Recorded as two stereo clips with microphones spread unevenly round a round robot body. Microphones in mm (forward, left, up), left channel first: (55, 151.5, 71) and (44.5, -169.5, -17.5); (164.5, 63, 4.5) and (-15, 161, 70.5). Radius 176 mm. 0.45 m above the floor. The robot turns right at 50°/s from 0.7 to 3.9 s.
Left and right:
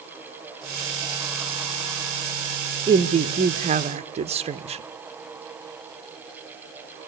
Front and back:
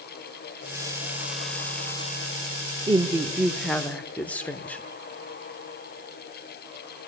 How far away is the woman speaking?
About 0.8 m.